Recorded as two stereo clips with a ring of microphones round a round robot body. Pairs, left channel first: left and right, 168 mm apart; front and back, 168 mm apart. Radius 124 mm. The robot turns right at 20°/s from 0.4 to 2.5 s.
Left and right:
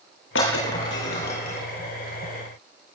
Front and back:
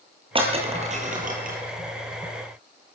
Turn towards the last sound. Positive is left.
turn(degrees=165)